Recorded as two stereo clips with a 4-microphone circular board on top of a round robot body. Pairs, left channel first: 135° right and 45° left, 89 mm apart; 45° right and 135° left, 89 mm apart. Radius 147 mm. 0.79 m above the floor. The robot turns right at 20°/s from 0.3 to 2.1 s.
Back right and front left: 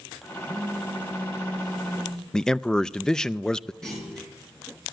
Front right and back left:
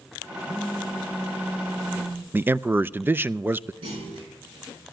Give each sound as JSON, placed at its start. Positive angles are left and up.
{"t": 0.5, "sound": "a phone buzzing", "azimuth_deg": 105, "distance_m": 2.5}
{"t": 2.3, "sound": "a man speaking", "azimuth_deg": 155, "distance_m": 0.5}
{"t": 3.8, "sound": "a clunk", "azimuth_deg": 140, "distance_m": 5.5}